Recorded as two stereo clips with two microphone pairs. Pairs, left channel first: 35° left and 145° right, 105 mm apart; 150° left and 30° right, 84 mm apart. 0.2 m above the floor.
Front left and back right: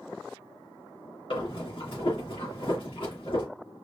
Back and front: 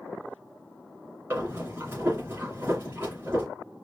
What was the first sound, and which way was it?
Breathing, 30° left.